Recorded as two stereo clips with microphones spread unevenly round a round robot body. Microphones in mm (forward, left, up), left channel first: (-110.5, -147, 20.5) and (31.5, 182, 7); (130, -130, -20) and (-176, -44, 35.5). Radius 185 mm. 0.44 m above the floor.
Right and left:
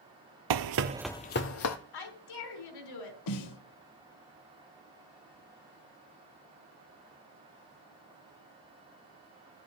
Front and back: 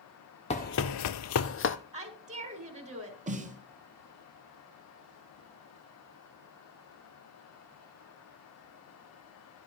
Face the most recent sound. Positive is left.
turn(degrees=-125)